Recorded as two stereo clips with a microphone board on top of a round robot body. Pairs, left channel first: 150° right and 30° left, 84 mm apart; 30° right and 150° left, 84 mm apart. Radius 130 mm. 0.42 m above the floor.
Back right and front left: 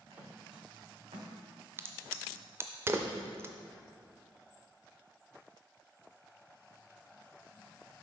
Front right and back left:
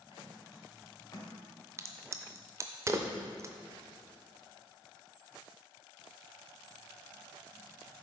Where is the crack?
95° left, 0.5 m.